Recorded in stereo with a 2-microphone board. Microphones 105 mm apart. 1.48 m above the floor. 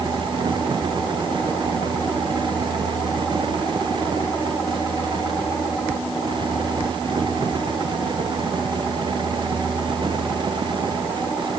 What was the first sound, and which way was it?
Only background noise.